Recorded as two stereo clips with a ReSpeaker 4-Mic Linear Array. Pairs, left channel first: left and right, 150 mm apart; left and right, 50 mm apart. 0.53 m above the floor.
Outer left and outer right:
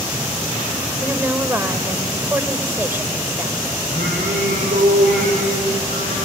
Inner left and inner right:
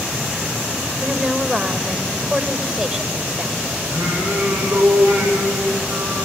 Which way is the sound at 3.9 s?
80° right.